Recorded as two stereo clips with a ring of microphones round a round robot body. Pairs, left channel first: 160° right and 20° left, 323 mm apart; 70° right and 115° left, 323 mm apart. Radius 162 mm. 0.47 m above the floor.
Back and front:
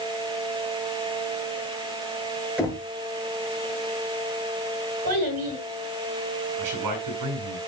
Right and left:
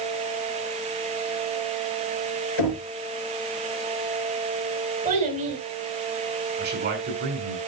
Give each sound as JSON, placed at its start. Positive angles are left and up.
{"t": 2.6, "sound": "knocking", "azimuth_deg": -65, "distance_m": 5.0}
{"t": 5.0, "sound": "a child speaking", "azimuth_deg": 45, "distance_m": 5.5}
{"t": 6.6, "sound": "a man speaking", "azimuth_deg": 55, "distance_m": 6.5}